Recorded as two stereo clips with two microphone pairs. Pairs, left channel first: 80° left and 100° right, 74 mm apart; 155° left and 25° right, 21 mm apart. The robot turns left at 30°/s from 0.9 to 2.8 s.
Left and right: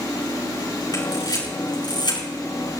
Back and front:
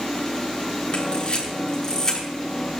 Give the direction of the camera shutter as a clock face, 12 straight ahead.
8 o'clock.